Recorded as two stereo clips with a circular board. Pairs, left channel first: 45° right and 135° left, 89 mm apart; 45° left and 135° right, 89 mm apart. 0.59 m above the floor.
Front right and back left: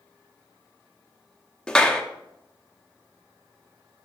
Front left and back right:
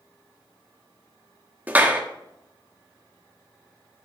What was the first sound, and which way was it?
A clap, 110° right.